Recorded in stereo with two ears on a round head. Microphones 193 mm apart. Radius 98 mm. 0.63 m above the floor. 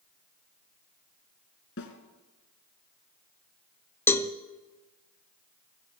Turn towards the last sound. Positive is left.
turn(degrees=10)  # may be behind; listen again after turning